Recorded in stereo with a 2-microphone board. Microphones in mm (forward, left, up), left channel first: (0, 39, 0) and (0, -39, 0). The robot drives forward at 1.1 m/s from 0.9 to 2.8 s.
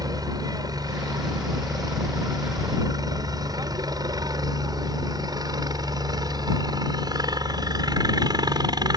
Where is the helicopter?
55° right (ahead or behind); by 9.0 s 60° right (ahead or behind).